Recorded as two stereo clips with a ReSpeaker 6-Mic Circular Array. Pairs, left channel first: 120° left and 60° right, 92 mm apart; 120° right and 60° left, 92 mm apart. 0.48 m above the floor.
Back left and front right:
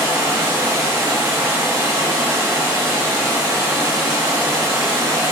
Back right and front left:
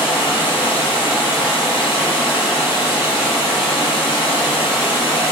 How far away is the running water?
About 1.6 m.